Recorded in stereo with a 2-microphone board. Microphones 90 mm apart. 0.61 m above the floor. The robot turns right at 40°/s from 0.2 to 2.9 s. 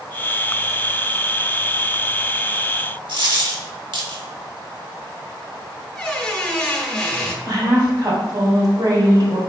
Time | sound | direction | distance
3.1 | a dropped coin | 70° right (ahead or behind) | 1.0 m
5.9 | a squeak | 15° left (ahead or behind) | 0.8 m
7.5 | a woman speaking | 55° right (ahead or behind) | 1.5 m